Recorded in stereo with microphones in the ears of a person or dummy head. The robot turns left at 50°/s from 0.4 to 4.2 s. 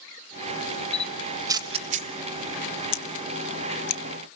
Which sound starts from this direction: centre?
A camera shutter, at 0.9 s.